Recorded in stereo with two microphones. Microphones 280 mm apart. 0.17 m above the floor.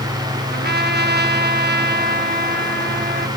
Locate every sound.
0.5 s a trumpet: 35° right (ahead or behind), 1.2 m